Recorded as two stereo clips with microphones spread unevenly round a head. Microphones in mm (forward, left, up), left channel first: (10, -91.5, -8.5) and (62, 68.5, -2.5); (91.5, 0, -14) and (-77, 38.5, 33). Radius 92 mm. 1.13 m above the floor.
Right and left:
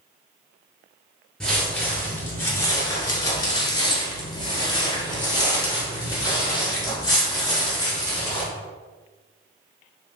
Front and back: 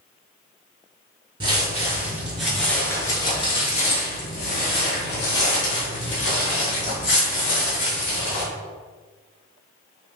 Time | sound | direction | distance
1.4 | footsteps | 165° left | 1.3 m